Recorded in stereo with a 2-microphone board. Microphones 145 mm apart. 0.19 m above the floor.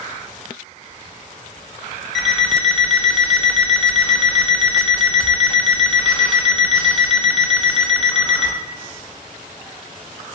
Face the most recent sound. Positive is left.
turn(degrees=5)  # may be behind; listen again after turning